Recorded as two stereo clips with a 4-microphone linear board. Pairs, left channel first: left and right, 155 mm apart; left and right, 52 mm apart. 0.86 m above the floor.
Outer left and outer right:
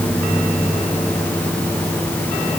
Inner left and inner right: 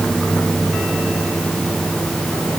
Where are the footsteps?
No footsteps in this recording.